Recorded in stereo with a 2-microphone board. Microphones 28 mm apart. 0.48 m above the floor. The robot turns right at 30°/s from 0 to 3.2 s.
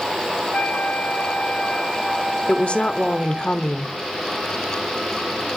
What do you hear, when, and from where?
0.5 s a flute: 125° left, 1.7 m; by 3.5 s 155° right, 1.7 m
2.5 s a woman speaking: 45° left (ahead or behind), 1.0 m; by 4.0 s 35° left (ahead or behind), 1.0 m